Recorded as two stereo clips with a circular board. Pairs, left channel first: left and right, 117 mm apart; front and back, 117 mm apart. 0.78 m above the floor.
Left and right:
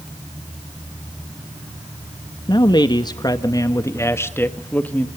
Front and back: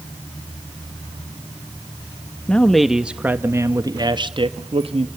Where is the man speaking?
75° left, 1.1 m; by 5.1 s 165° left, 1.5 m.